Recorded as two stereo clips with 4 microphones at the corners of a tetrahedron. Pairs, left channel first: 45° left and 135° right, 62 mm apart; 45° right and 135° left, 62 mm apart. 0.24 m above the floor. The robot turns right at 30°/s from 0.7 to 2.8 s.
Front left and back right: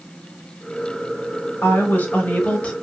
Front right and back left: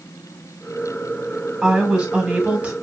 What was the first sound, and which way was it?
A woman speaking, 55° left.